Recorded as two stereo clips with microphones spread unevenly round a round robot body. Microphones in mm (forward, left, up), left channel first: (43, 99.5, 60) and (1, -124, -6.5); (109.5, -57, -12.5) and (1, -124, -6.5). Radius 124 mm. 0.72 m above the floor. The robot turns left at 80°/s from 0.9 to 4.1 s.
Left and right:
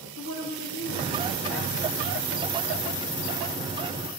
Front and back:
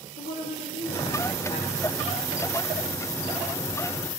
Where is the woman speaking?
40° left, 1.7 m; by 2.5 s 85° right, 1.7 m.